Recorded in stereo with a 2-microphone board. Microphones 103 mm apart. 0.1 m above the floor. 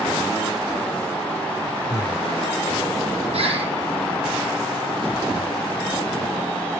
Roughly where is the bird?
Right.